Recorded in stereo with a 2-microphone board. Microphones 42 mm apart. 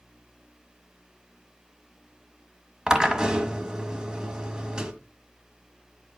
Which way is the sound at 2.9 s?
20° right (ahead or behind).